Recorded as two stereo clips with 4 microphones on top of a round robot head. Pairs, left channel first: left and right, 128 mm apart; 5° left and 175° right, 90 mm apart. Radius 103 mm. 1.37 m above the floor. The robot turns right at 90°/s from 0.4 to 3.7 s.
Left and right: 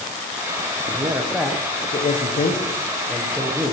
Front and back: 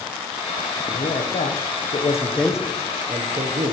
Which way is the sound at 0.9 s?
50° right.